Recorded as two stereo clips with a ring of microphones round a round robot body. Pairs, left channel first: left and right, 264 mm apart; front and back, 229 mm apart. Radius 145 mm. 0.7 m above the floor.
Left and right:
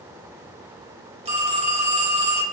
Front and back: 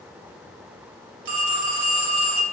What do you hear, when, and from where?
1.2 s a phone ringing: 160° right, 1.7 m